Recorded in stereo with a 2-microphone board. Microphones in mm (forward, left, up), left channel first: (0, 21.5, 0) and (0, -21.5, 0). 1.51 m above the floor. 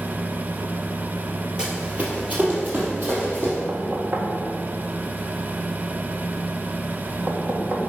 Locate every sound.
1.6 s running footsteps: 20° right (ahead or behind), 2 m; by 3.6 s 50° right (ahead or behind), 4 m
3.7 s knocking: 50° right (ahead or behind), 1.6 m